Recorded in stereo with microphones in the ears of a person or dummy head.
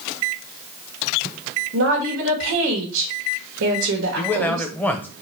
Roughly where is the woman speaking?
Right.